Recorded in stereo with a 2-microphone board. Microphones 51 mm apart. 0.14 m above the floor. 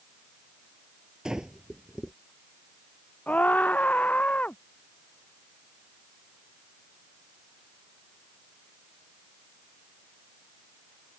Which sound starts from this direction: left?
A scream, at 3.3 s.